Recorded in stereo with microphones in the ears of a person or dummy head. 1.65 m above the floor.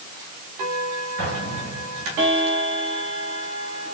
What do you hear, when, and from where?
1.2 s an explosion: 50° right (ahead or behind), 6 m